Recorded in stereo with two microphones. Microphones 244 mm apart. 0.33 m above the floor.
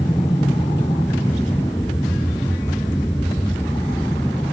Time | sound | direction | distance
0.0 | an aircraft | 15° left (ahead or behind) | ?